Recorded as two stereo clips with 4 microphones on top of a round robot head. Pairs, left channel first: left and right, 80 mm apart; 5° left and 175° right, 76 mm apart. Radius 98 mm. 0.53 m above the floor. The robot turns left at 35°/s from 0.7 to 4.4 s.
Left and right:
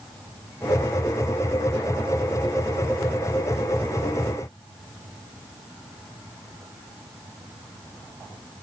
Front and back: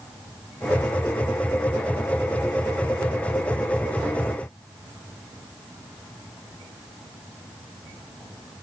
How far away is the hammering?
No hammering in this recording.